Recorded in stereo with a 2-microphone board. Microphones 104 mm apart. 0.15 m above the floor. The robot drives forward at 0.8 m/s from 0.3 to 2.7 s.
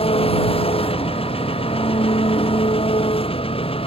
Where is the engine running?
75° left (ahead or behind); by 3.9 s 70° left (ahead or behind).